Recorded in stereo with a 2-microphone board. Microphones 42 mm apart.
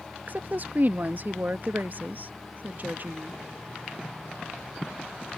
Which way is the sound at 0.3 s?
50° right (ahead or behind).